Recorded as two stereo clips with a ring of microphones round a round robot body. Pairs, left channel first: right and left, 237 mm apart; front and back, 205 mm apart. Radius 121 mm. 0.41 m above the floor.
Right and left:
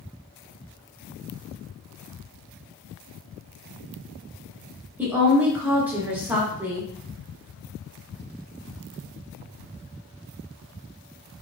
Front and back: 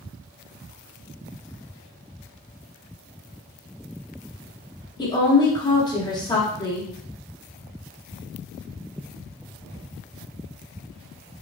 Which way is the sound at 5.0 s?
20° left.